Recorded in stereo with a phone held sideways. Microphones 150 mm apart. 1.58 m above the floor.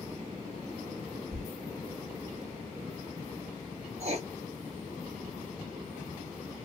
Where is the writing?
45° right (ahead or behind), 0.7 m.